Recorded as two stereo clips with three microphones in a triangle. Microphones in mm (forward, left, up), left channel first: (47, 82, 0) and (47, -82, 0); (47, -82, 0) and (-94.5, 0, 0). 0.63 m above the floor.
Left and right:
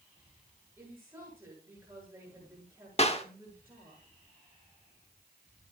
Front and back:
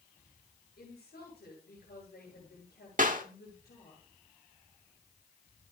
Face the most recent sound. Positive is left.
turn(degrees=130)